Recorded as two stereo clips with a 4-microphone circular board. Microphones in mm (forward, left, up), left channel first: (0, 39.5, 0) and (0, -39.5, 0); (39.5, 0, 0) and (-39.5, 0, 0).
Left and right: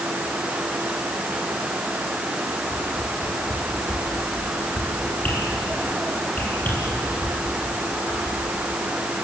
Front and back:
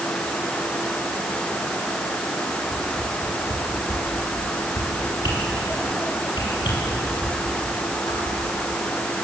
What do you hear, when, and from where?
2.7 s a whoosh: 25° left, 8 m